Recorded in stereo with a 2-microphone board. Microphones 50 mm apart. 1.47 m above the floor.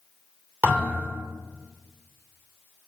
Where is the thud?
35° right (ahead or behind), 2.5 m.